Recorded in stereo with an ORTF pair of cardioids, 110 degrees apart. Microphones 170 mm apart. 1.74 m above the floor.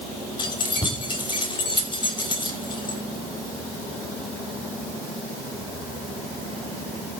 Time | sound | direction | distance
0.4 | keys jangling | 30° left | 6 m